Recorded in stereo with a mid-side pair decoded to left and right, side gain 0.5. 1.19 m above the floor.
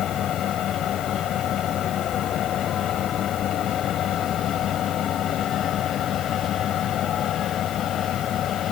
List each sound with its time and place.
0.0 s a fan: 60° left